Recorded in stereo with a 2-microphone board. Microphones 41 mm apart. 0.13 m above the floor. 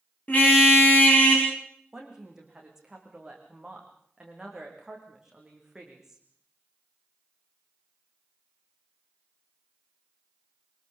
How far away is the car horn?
About 6.5 m.